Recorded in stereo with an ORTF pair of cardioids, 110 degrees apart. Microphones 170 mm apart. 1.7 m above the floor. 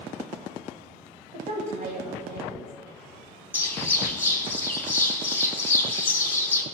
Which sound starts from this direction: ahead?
A bird, at 3.5 s.